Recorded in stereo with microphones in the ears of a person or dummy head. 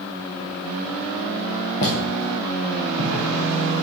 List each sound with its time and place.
1.8 s footsteps: 45° left (ahead or behind), 2.5 m; by 3.9 s 65° left (ahead or behind), 4.5 m